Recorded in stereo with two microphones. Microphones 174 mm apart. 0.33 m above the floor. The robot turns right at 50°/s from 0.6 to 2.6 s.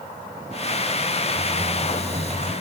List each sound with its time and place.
1.3 s typing on a keyboard: 95° right, 2.5 m; by 2.5 s 40° right, 2.5 m